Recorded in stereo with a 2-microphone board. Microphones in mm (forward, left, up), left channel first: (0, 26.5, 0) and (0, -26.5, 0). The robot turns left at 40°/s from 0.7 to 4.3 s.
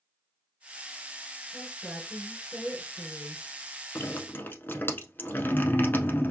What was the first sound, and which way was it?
A woman speaking, 175° right.